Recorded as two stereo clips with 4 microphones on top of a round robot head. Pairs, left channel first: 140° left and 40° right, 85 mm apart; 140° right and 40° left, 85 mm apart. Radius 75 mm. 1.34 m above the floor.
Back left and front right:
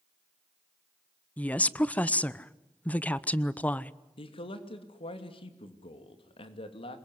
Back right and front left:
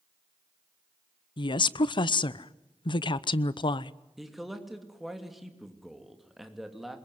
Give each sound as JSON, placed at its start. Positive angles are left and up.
{"t": 1.4, "sound": "a woman speaking", "azimuth_deg": -150, "distance_m": 0.9}
{"t": 4.2, "sound": "a man speaking", "azimuth_deg": 130, "distance_m": 3.0}